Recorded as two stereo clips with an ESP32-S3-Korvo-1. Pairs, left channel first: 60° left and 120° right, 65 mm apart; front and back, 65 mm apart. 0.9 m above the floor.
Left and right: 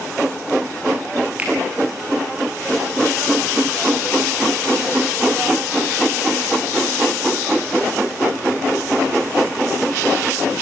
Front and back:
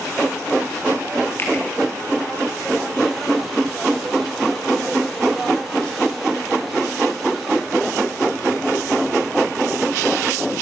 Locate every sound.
1.4 s a finger snap: 55° right, 8.5 m